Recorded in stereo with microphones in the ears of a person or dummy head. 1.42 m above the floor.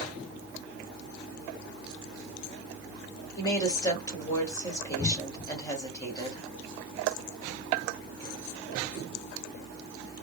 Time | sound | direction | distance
3.4 | a woman speaking | 25° left (ahead or behind) | 1.7 m